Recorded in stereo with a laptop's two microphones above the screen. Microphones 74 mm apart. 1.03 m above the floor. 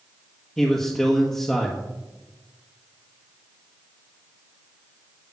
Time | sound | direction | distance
0.6 | a man speaking | 10° left (ahead or behind) | 1.3 m